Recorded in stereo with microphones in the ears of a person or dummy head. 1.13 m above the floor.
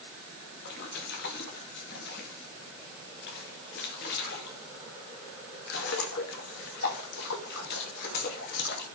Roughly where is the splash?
Left.